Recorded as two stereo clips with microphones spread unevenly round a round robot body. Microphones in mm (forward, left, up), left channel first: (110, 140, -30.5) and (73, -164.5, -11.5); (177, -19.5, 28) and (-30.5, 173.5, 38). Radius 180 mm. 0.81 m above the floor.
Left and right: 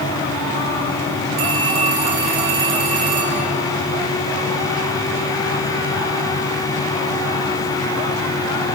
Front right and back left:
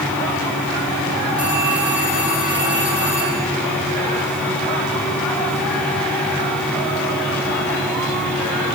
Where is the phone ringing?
135° right, 6 m.